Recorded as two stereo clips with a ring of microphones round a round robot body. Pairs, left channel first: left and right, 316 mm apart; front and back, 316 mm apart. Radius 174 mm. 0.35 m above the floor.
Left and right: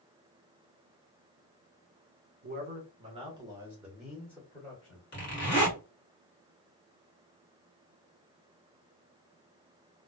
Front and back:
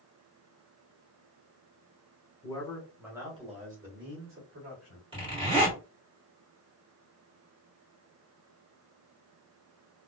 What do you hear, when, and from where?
2.4 s a man speaking: 65° right, 1.2 m; by 5.0 s 165° left, 1.6 m
5.1 s a zipper: 115° left, 1.6 m